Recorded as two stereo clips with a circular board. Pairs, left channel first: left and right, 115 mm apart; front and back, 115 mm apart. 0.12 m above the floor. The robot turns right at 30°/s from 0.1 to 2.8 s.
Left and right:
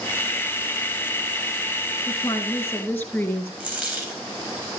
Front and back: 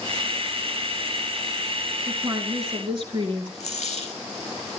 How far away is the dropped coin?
About 4 m.